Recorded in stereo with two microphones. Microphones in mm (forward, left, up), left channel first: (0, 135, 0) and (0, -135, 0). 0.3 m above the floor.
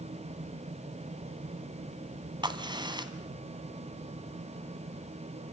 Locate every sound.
2.4 s a crack: 15° right (ahead or behind), 2 m